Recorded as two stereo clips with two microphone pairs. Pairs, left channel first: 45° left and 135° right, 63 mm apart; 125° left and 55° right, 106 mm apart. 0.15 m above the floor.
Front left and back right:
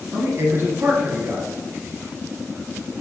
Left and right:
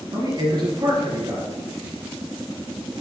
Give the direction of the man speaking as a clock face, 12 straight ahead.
3 o'clock.